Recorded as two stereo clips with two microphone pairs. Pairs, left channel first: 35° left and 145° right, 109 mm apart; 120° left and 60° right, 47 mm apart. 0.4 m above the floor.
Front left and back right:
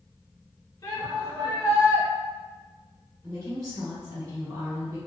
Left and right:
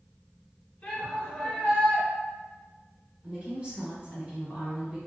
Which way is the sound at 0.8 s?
75° left.